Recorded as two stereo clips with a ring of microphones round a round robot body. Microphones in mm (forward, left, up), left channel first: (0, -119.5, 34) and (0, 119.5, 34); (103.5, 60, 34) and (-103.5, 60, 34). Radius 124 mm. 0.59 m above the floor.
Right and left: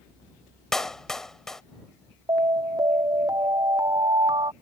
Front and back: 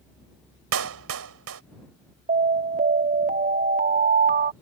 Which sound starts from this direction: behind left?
An alarm, at 2.3 s.